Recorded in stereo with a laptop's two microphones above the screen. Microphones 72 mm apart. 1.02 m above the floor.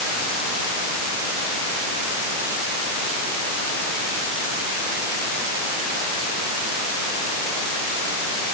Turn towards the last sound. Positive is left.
No sound to turn to.